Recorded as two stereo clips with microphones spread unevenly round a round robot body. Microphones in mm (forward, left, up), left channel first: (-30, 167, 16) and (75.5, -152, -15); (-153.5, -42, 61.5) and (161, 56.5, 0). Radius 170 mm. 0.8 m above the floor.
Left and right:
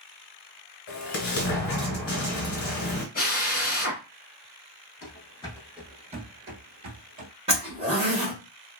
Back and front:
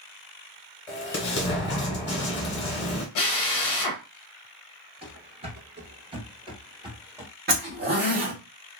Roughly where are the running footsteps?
Left.